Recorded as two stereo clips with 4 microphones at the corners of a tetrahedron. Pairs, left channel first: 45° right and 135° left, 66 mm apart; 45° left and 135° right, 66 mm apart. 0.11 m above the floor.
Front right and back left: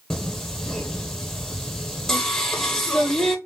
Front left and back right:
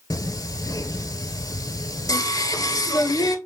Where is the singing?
40° left, 0.6 m.